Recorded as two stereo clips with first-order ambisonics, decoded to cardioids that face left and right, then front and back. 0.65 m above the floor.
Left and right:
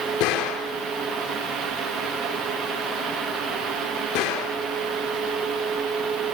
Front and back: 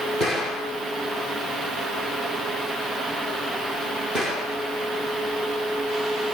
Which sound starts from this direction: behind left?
A gunshot, at 0.2 s.